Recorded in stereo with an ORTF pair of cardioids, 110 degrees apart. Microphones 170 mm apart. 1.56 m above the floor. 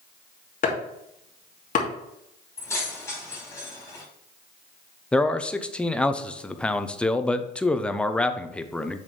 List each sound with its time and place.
0.6 s chopping: 50° left, 2.5 m
2.6 s keys jangling: 15° left, 4.5 m
5.1 s a man speaking: 5° left, 0.7 m